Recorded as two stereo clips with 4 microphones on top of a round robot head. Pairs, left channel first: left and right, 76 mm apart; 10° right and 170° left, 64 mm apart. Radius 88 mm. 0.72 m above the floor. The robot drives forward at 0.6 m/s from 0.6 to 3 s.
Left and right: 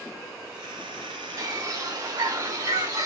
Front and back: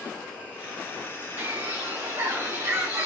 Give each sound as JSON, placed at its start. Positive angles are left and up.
{"t": 1.4, "sound": "a bird", "azimuth_deg": -125, "distance_m": 4.0}